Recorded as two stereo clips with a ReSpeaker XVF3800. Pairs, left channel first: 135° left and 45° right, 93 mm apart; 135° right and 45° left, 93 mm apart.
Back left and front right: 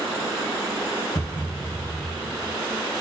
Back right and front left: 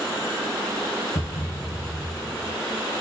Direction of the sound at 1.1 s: 160° right.